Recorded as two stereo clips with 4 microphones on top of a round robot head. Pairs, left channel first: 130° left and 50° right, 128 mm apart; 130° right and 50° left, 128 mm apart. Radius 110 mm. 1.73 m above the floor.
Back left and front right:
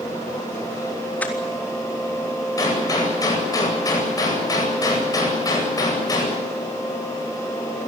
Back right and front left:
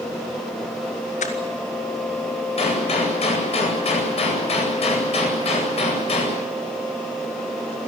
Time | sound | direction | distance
1.2 | crushing | 150° right | 3.5 m
2.6 | a gunshot | 170° right | 9 m